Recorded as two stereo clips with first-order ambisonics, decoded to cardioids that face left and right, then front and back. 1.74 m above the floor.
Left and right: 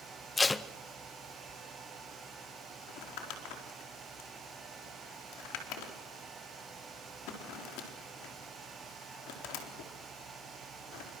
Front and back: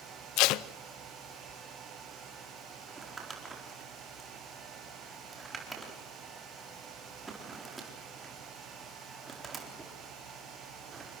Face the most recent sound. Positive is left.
turn(degrees=105)